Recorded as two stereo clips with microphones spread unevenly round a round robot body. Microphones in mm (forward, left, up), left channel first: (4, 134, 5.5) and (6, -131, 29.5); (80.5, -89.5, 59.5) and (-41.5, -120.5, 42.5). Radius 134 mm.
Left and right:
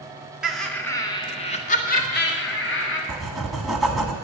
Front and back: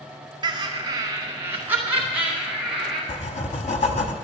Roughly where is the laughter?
Behind.